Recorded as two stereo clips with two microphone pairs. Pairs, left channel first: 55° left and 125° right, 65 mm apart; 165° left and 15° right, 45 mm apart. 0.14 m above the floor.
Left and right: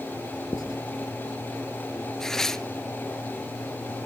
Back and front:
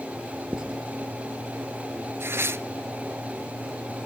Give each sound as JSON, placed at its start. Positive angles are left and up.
{"t": 0.5, "sound": "writing", "azimuth_deg": 60, "distance_m": 2.0}
{"t": 2.2, "sound": "tearing paper", "azimuth_deg": -25, "distance_m": 0.6}